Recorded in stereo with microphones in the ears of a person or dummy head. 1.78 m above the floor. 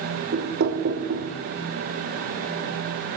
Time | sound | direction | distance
0.3 | knocking | 60° right (ahead or behind) | 1.3 m